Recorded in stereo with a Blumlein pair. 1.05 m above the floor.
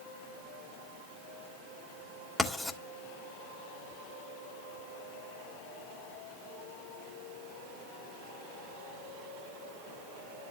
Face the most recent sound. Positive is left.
turn(degrees=10)